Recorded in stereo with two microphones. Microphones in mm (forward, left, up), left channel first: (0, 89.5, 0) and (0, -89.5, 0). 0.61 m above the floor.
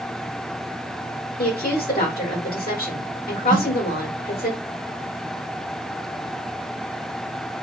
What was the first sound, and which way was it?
A woman speaking, 55° left (ahead or behind).